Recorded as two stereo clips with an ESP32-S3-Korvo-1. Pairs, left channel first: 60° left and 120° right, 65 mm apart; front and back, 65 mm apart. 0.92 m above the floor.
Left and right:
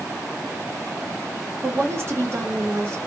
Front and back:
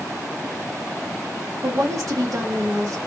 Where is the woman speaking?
160° right, 0.9 m.